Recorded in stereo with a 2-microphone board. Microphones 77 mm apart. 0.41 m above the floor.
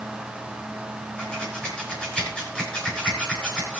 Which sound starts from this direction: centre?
Scissors, at 1.2 s.